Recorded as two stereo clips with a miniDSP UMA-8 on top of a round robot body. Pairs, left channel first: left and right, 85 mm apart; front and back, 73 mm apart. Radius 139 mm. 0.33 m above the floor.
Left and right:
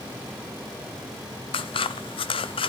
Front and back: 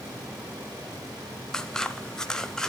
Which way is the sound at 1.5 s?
80° left.